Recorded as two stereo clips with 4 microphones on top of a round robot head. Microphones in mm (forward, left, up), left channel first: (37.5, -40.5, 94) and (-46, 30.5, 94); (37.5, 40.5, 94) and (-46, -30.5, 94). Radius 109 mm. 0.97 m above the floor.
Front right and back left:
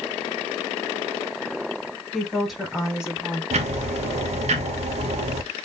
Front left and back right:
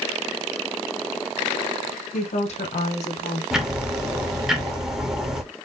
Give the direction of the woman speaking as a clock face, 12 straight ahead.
10 o'clock.